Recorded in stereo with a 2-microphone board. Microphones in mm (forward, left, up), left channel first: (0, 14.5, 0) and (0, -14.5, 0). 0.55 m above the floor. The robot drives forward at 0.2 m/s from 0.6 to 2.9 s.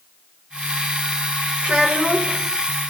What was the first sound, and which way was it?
A child speaking, 60° right (ahead or behind).